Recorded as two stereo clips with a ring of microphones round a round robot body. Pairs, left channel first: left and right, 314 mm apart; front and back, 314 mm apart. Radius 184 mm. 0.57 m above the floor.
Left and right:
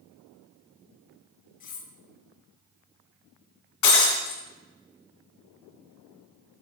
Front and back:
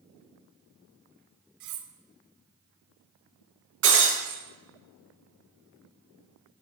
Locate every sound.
1.6 s cutlery clinking: 155° left, 1.1 m
3.8 s breaking glass: 125° left, 3 m